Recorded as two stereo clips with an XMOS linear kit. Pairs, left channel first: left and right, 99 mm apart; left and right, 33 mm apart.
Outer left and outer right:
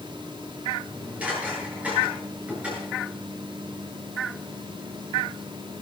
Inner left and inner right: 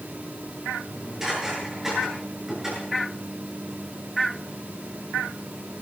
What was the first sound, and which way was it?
Dishes clattering, 15° right (ahead or behind).